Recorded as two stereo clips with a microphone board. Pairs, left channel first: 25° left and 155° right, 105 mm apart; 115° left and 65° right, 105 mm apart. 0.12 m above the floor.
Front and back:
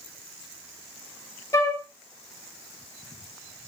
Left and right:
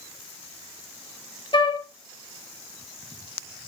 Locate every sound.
1.5 s a flute: 80° left, 0.6 m